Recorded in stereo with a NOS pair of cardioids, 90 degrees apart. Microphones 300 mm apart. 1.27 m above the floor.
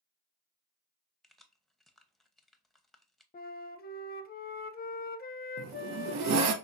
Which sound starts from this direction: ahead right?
A zipper, at 5.6 s.